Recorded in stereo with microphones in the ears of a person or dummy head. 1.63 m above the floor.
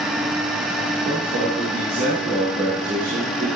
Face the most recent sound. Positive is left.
turn(degrees=-60)  # may be behind; listen again after turning